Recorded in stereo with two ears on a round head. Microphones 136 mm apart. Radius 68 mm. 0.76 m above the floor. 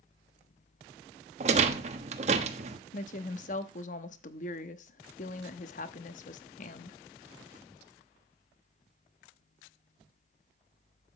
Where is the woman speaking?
50° left (ahead or behind), 1.0 m.